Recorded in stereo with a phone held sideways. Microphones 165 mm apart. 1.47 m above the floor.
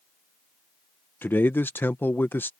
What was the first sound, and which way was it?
A man speaking, 15° left (ahead or behind).